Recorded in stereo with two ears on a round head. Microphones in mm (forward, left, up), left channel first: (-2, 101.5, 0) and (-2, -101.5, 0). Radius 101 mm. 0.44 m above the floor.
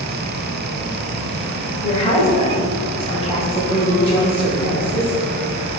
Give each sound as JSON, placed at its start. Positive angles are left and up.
{"t": 1.8, "sound": "a woman speaking", "side_deg": 30, "distance_m": 1.7}